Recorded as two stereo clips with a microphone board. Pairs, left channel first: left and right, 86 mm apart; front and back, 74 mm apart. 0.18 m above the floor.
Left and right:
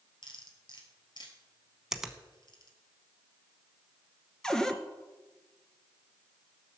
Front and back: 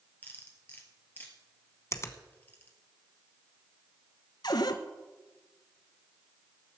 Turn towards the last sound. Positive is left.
turn(degrees=10)